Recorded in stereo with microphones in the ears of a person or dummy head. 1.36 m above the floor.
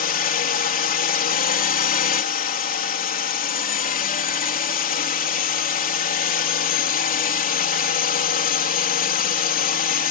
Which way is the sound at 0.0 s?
45° left (ahead or behind).